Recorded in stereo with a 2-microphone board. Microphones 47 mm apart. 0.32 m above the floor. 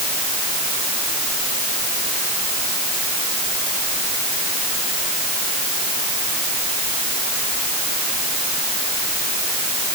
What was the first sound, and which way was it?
Only background noise.